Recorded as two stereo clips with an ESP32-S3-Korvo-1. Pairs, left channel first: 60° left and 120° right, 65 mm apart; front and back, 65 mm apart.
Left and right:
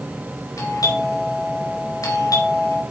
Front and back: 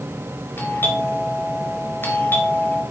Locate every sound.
0.6 s a doorbell: 55° left, 4 m